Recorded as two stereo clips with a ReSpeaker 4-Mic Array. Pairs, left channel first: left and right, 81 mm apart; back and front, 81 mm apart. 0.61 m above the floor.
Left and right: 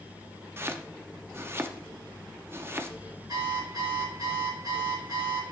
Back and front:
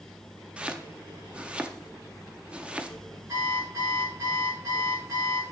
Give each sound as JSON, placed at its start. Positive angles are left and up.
{"t": 0.6, "sound": "chopping", "azimuth_deg": -65, "distance_m": 0.6}
{"t": 3.3, "sound": "an alarm clock", "azimuth_deg": -50, "distance_m": 5.0}